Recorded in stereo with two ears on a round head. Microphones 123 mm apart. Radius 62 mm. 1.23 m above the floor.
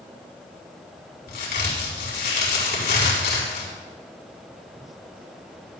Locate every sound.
1.3 s a crack: 80° left, 4.5 m